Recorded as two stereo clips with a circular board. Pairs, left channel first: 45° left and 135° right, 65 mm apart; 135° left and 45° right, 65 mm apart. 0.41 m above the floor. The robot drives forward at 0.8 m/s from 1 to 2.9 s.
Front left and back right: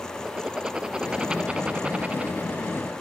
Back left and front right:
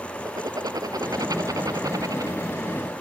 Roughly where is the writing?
Ahead right.